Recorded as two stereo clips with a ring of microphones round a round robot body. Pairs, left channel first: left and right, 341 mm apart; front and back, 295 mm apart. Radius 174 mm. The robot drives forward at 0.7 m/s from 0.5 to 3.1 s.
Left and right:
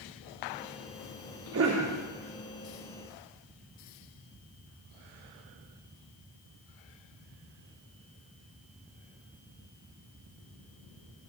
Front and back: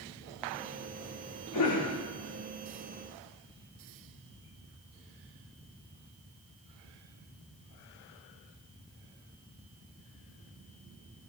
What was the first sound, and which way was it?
A cough, 40° right.